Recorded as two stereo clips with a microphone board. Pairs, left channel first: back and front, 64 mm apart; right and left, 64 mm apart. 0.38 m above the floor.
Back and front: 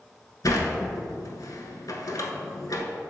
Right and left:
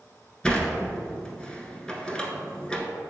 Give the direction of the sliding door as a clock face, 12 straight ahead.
5 o'clock.